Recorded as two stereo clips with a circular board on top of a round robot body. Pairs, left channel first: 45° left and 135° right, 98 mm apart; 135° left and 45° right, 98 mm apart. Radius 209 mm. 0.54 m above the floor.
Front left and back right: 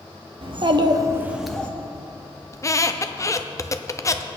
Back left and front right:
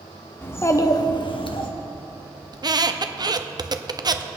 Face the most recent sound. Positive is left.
turn(degrees=-10)